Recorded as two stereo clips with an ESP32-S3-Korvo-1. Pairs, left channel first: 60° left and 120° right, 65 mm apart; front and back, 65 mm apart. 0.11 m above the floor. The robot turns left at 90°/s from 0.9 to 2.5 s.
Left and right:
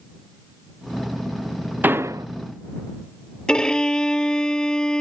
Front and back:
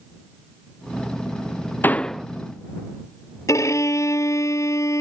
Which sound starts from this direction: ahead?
A violin, at 3.5 s.